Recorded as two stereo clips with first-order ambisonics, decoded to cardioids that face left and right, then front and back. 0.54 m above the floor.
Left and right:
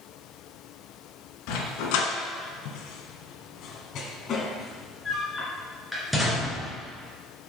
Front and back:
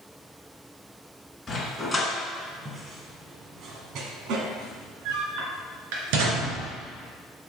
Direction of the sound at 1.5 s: 80° left.